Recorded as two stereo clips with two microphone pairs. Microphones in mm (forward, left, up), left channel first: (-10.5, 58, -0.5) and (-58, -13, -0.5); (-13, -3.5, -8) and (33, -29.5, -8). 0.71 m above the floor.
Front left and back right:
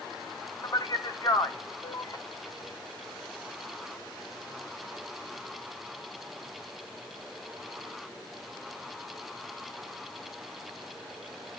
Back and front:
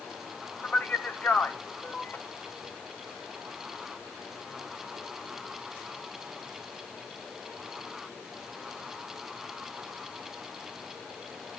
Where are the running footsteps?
No running footsteps in this recording.